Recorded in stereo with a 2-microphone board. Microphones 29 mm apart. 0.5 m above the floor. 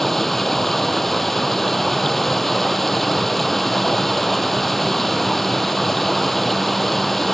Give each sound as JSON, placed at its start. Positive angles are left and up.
{"t": 0.0, "sound": "running water", "side_deg": 10}